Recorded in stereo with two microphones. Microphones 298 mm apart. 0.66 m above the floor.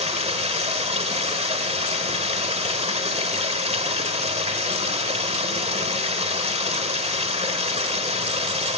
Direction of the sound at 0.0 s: 20° right (ahead or behind).